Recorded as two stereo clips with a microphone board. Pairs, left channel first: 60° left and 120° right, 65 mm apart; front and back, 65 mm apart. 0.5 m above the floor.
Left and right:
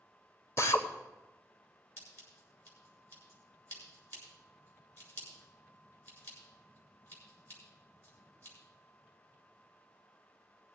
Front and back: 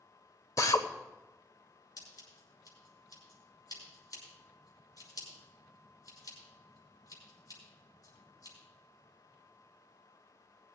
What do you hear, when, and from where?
0.6 s a drill: 20° left, 1.0 m
2.0 s scissors: 10° left, 6 m